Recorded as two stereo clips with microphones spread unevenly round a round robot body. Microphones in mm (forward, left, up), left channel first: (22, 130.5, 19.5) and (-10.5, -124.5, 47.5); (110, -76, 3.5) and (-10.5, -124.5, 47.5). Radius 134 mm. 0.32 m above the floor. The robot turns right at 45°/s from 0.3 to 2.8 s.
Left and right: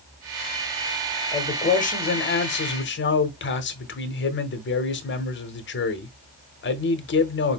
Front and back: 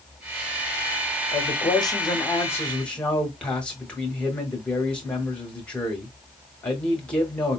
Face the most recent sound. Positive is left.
turn(degrees=85)